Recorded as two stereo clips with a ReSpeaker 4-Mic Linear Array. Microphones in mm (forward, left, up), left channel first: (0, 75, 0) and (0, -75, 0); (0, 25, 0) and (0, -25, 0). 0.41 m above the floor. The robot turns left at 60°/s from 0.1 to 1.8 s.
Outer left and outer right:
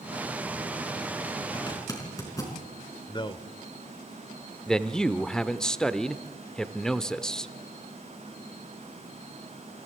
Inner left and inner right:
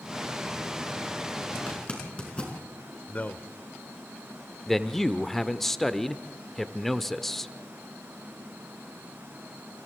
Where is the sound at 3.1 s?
35° left (ahead or behind), 1.0 m.